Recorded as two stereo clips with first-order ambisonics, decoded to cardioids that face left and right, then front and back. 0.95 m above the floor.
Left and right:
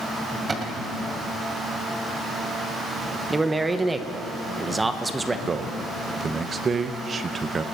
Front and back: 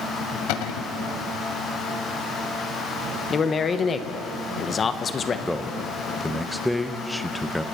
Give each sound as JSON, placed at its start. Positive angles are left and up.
{"t": 0.5, "sound": "a cupboard door", "azimuth_deg": -20, "distance_m": 1.8}
{"t": 3.3, "sound": "a man speaking", "azimuth_deg": -30, "distance_m": 0.9}
{"t": 5.5, "sound": "a man speaking", "azimuth_deg": -80, "distance_m": 0.7}